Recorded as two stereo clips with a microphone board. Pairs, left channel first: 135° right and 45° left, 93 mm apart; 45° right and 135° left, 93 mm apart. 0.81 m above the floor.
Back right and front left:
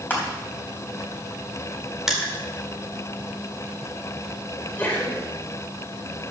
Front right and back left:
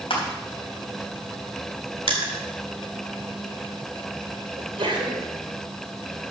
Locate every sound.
0.1 s crushing: 65° right, 3.5 m
2.1 s crushing: 130° left, 2 m
4.6 s a sneeze: 155° left, 3.5 m